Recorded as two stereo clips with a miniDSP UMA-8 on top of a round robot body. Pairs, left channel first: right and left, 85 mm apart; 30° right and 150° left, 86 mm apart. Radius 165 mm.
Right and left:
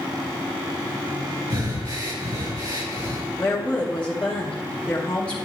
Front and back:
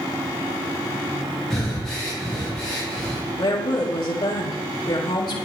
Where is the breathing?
55° left, 5.5 m.